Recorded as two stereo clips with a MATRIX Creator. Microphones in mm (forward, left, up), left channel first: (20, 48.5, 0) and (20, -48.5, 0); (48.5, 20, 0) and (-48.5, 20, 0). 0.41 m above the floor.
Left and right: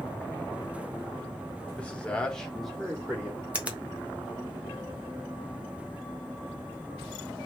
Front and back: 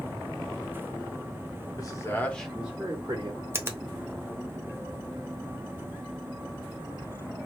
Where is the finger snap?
150° right, 0.6 m.